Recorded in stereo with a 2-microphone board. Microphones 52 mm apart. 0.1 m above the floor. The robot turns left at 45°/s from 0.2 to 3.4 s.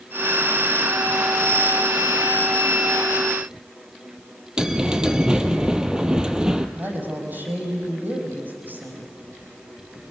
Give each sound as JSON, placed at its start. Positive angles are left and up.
{"t": 4.6, "sound": "a bell", "side_deg": -15, "distance_m": 1.2}
{"t": 6.8, "sound": "a woman speaking", "side_deg": -40, "distance_m": 5.0}